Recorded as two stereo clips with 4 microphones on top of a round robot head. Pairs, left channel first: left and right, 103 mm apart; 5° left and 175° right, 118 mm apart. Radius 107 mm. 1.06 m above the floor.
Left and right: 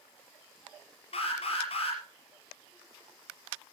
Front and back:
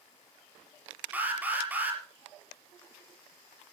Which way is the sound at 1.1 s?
110° left.